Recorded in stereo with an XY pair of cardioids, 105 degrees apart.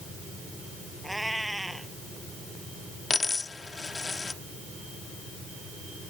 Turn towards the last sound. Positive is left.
turn(degrees=25)